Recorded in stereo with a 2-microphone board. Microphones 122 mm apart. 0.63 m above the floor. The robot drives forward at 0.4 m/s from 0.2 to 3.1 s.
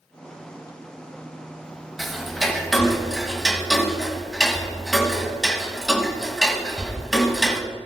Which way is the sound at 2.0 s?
Centre (ahead or behind).